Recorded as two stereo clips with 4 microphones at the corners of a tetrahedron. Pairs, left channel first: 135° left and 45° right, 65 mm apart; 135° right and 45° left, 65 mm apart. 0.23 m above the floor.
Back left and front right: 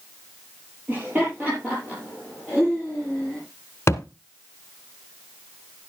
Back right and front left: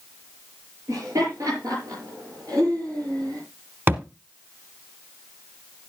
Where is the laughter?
15° left, 6 m; by 3.4 s 35° left, 6.5 m.